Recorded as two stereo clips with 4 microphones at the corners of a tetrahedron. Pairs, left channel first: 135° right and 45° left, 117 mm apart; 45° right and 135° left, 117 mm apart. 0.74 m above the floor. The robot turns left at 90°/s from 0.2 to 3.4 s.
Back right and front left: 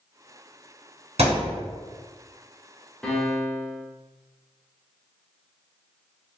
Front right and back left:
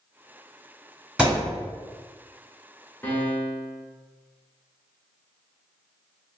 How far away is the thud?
About 1.7 m.